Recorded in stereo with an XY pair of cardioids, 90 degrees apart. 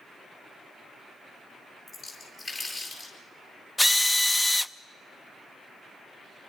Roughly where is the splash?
Ahead left.